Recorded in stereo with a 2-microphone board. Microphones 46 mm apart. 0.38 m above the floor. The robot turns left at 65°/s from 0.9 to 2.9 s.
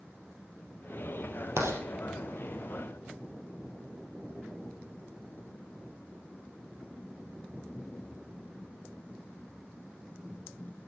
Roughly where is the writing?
Right.